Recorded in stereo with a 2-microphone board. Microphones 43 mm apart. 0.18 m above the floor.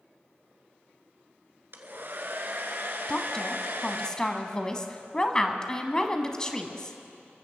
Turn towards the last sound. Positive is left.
turn(degrees=20)  # may be behind; listen again after turning